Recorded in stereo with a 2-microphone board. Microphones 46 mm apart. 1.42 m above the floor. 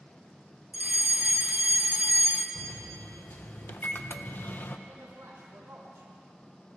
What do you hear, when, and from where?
0.7 s a fire alarm: 35° right (ahead or behind), 0.8 m
2.5 s a microwave: 45° left (ahead or behind), 0.6 m
4.9 s a man speaking: 80° right, 2.5 m